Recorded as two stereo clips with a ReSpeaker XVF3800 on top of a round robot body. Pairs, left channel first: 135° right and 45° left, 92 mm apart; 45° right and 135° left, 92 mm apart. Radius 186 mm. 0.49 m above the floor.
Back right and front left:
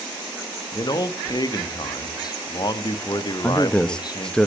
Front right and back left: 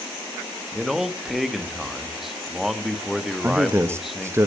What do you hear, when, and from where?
0.7 s a man speaking: 140° right, 1.3 m
3.4 s a man speaking: 155° left, 0.8 m